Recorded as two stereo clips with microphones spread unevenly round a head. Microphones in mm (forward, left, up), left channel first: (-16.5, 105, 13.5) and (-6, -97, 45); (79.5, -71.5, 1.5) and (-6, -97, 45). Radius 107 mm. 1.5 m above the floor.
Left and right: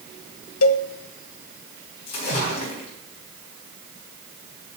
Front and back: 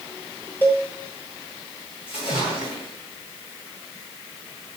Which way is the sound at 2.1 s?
85° left.